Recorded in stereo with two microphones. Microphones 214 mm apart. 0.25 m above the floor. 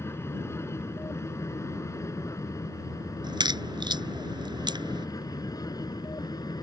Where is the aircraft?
10° left (ahead or behind); by 6.6 s 20° left (ahead or behind).